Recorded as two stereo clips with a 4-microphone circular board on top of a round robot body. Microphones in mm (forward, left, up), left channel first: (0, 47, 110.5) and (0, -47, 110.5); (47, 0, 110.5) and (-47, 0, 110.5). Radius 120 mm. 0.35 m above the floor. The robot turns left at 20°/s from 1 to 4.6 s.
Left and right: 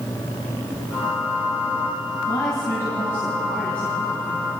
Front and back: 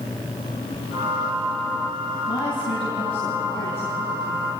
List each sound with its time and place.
2.2 s a woman speaking: 40° left, 4.5 m; by 4.5 s 5° right, 4.5 m